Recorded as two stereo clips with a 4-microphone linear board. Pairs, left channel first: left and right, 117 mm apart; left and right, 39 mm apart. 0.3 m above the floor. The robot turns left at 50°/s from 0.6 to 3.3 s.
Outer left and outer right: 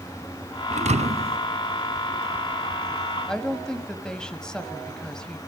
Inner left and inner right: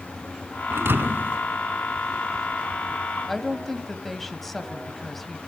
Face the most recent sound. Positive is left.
turn(degrees=5)  # may be behind; listen again after turning